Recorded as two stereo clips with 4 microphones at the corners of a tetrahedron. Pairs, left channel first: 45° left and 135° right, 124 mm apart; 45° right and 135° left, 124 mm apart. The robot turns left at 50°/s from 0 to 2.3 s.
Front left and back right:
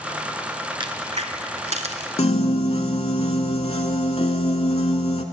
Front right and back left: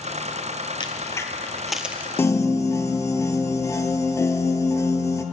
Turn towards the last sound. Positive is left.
turn(degrees=15)